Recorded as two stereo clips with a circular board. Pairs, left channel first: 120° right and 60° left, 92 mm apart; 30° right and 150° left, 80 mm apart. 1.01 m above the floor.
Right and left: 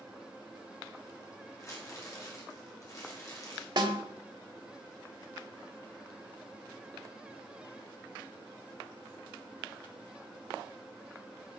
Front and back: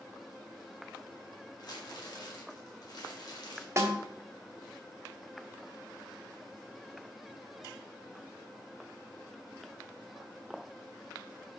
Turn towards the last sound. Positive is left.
turn(degrees=95)